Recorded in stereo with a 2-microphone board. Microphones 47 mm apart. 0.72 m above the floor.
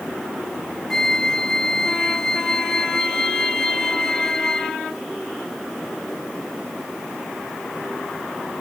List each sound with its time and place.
0.9 s a flute: 10° left (ahead or behind)